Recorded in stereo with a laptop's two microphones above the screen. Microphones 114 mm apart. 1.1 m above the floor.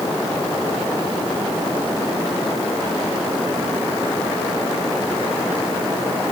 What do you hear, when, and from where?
Only background noise.